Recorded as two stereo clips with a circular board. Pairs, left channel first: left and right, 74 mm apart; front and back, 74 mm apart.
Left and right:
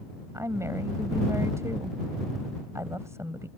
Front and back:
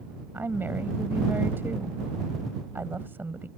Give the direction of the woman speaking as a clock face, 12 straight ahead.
4 o'clock.